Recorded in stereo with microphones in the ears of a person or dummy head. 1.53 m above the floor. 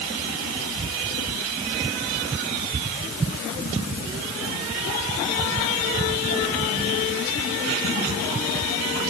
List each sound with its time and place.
Only background noise.